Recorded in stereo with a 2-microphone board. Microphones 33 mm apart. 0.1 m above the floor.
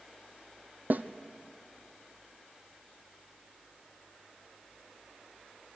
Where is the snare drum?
55° right (ahead or behind), 0.8 m.